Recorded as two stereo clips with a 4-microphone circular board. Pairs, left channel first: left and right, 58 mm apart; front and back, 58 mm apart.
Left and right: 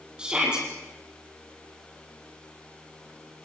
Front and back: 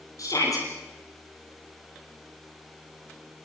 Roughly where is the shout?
Ahead.